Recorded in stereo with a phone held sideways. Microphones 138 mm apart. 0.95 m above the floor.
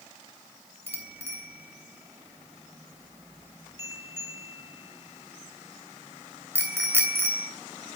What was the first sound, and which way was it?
A bicycle bell, 20° right (ahead or behind).